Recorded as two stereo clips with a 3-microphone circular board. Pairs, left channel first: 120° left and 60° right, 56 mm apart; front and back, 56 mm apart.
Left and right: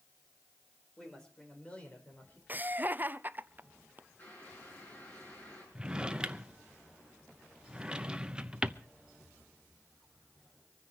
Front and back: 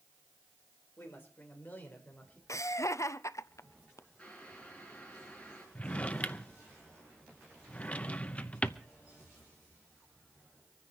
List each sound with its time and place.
1.0 s a woman speaking: 45° left, 4.5 m; by 2.4 s 65° left, 4.5 m
2.5 s laughter: 5° right, 0.6 m
4.2 s boiling: 70° left, 7 m
5.8 s a drawer: 10° right, 0.7 m